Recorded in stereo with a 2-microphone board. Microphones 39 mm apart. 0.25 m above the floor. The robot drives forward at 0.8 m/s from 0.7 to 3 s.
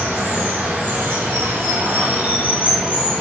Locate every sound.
0.0 s running water: 55° right (ahead or behind), 1.0 m; by 3.2 s 30° right (ahead or behind), 1.5 m